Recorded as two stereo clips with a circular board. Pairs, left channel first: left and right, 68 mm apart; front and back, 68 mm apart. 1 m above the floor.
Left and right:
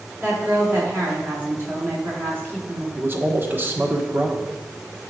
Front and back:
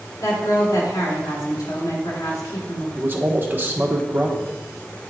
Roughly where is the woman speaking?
Ahead right.